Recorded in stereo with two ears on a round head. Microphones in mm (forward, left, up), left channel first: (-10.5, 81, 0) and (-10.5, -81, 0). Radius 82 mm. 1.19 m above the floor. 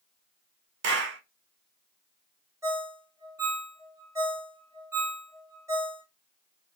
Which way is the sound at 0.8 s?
70° right (ahead or behind).